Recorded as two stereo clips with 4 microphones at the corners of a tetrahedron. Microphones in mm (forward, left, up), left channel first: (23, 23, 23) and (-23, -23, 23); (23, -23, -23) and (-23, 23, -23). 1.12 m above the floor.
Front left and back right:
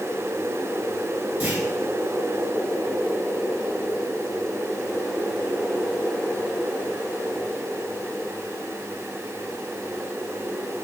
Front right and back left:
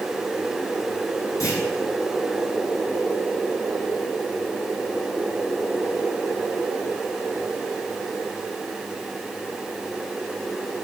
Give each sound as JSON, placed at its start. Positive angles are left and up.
{"t": 1.4, "sound": "a clunk", "azimuth_deg": -70, "distance_m": 5.5}